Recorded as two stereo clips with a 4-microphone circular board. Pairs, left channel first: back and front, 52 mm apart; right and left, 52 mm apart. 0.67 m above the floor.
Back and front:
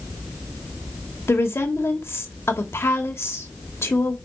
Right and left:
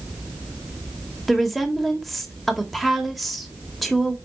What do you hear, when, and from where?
1.3 s a woman speaking: 175° right, 1.7 m